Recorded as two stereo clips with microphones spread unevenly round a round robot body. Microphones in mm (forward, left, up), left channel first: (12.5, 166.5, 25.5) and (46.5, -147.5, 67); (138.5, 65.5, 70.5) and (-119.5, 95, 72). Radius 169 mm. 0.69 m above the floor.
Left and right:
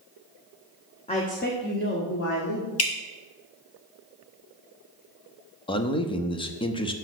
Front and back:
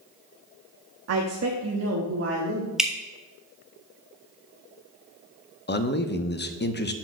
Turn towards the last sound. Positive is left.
turn(degrees=30)